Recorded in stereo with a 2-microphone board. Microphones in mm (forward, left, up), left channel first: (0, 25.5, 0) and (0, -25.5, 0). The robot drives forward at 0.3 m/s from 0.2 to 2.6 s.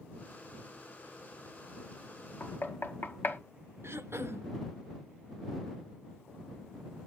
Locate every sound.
2.4 s knocking: 40° left (ahead or behind), 1.2 m; by 3.4 s 45° left (ahead or behind), 1.2 m
3.8 s throat clearing: 55° right (ahead or behind), 0.7 m